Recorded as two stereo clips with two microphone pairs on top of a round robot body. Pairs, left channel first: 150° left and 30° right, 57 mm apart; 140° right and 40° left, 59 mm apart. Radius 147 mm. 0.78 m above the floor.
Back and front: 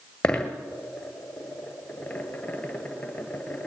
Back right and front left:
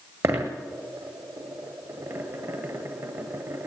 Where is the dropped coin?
80° left, 1.5 m.